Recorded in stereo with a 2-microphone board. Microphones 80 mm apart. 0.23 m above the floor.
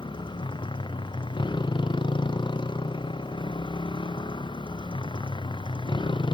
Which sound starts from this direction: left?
A motorcycle, at 0.0 s.